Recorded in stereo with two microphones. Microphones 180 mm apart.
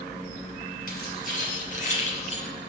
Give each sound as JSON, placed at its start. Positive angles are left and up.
{"t": 0.9, "sound": "keys jangling", "side_deg": 50, "distance_m": 4.5}